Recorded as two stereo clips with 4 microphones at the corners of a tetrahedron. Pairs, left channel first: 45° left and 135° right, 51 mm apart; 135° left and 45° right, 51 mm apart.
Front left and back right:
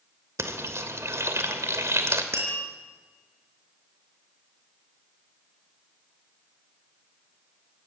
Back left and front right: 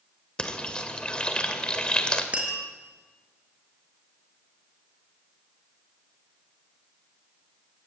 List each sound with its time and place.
0.4 s frying: 155° right, 2.5 m
2.3 s tapping: 110° right, 5 m